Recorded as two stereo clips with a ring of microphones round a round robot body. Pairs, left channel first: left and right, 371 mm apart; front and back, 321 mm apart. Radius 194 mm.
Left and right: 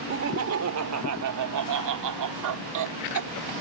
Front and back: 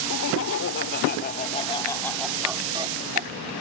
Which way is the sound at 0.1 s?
40° right.